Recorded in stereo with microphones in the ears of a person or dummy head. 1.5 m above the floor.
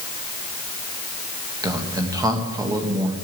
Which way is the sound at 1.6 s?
20° right (ahead or behind).